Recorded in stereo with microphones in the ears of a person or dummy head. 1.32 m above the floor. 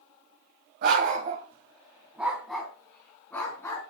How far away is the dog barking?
About 2.0 m.